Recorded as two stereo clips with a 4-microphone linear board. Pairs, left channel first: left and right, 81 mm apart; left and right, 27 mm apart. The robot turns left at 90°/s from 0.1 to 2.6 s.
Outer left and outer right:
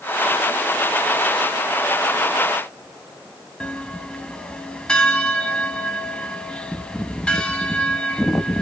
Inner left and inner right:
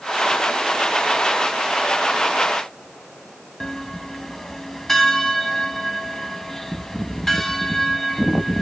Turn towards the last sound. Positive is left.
turn(degrees=10)  # may be behind; listen again after turning